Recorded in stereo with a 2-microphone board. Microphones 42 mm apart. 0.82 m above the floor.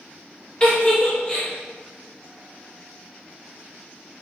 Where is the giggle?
20° left (ahead or behind), 0.6 m.